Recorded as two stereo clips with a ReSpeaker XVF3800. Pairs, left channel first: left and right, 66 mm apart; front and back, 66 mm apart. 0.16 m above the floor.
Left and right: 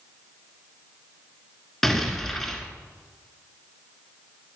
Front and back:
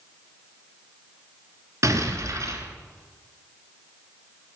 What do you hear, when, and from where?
1.8 s an explosion: 175° left, 1.5 m